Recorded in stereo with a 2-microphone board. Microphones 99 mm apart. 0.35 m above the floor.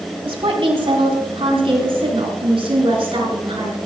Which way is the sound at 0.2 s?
65° right (ahead or behind).